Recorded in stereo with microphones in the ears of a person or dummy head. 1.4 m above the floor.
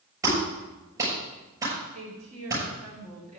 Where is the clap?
20° right (ahead or behind), 6.5 m.